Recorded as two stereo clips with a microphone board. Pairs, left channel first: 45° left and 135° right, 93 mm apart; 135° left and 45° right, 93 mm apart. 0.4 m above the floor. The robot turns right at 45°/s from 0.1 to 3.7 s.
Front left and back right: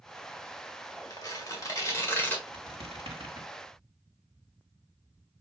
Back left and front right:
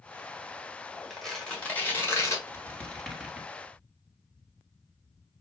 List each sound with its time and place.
1.1 s tearing paper: 45° left, 1.6 m; by 2.4 s 105° left, 1.6 m
2.5 s a squeak: 165° right, 1.5 m; by 3.5 s 120° right, 1.5 m